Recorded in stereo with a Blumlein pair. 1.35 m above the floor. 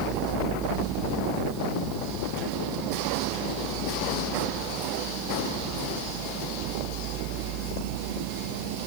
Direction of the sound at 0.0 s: 30° right.